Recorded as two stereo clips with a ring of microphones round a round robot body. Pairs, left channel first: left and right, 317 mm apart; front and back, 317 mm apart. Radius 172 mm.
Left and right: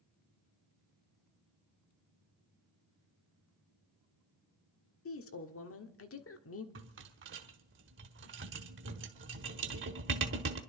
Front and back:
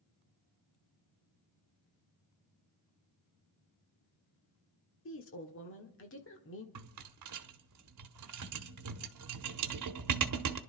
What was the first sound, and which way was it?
A woman speaking, 50° left.